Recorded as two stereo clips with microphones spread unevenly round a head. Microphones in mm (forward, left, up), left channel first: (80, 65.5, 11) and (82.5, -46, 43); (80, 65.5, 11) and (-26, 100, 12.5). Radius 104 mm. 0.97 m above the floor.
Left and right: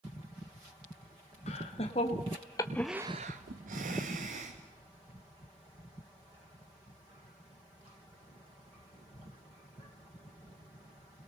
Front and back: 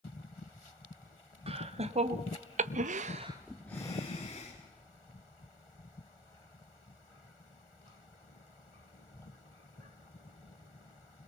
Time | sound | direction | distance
1.5 | laughter | 135° left | 2 m